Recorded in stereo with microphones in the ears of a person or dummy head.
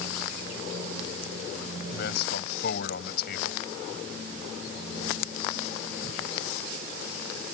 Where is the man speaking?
60° left (ahead or behind).